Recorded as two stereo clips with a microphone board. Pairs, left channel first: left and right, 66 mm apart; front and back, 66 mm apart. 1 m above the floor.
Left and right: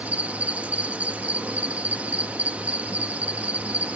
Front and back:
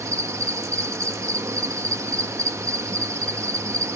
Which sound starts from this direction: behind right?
An insect, at 0.0 s.